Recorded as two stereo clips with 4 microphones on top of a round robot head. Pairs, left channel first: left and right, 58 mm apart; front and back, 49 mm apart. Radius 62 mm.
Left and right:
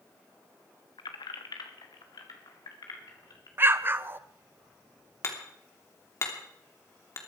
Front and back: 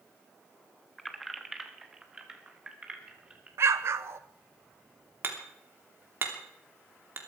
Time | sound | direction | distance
1.0 | keys jangling | 85° left | 1.2 m
3.6 | an explosion | 145° right | 0.8 m
5.2 | hammering | 135° left | 3 m